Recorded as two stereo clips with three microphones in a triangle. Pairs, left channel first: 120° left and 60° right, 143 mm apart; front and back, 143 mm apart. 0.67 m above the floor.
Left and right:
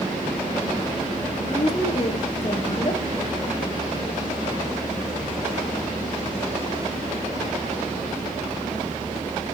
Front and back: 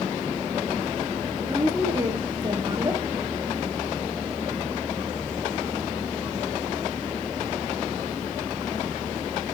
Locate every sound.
1.4 s a woman speaking: 130° left, 1.1 m